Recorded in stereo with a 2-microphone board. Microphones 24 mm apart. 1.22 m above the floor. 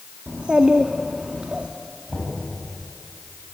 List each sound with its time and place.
0.3 s a child speaking: 55° right (ahead or behind), 1.4 m
2.1 s knocking: 25° right (ahead or behind), 8 m